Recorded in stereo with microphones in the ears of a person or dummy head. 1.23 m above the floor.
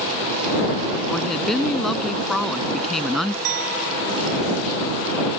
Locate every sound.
1.1 s a woman speaking: 10° left (ahead or behind)
3.5 s a clink: 85° right